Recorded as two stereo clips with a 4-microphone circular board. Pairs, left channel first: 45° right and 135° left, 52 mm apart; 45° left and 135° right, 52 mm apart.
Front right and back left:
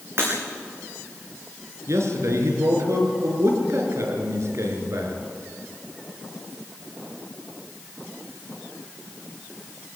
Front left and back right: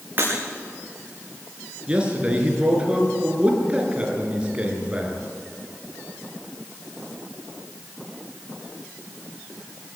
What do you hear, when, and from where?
0.2 s breaking glass: 175° left, 8.5 m
1.9 s a man speaking: 155° left, 5 m